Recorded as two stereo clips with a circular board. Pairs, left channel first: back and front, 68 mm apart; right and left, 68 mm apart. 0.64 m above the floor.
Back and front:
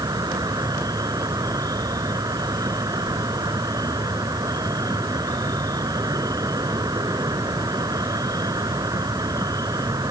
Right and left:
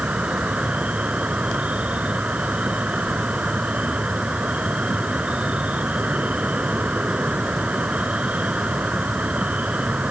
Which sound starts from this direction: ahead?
An insect, at 0.0 s.